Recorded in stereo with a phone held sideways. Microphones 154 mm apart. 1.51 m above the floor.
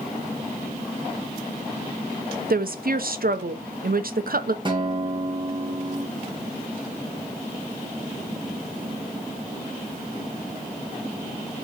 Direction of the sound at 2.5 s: 70° right (ahead or behind).